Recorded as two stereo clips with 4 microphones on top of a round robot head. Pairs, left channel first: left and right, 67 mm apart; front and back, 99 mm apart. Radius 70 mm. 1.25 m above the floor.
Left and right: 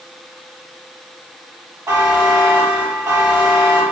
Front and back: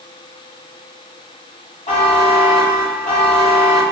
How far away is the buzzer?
About 0.9 m.